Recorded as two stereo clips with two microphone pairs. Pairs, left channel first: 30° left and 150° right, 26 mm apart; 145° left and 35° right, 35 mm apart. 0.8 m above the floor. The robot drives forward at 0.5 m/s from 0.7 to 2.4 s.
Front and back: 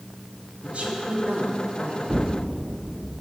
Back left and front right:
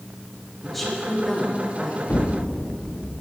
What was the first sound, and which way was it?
A woman speaking, 135° right.